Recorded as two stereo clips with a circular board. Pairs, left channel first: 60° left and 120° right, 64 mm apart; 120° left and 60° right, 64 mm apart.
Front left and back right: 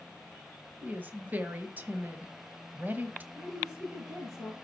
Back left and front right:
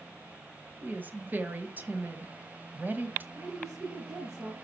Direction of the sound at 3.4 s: 80° right.